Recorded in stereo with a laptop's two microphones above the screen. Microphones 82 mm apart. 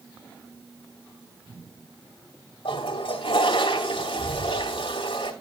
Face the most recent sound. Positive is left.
turn(degrees=80)